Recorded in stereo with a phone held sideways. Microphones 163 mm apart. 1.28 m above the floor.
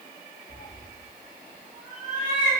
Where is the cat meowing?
25° left (ahead or behind), 1.0 m; by 2.5 s 10° right (ahead or behind), 1.4 m.